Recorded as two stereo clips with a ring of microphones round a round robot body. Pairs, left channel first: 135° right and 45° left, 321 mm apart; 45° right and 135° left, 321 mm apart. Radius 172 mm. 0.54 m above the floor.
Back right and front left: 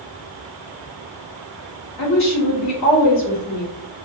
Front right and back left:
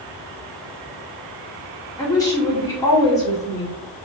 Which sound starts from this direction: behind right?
A woman speaking, at 2.0 s.